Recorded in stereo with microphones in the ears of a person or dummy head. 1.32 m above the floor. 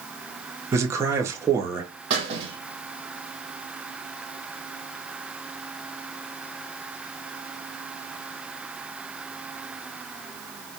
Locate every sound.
0.7 s a man speaking: 20° right (ahead or behind), 0.5 m
2.1 s a squeak: 35° right (ahead or behind), 0.8 m